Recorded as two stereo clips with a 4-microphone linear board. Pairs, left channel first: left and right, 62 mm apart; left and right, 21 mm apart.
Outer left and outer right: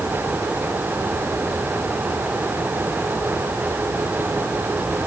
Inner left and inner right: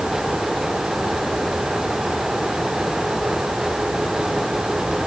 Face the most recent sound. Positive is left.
No sound to turn to.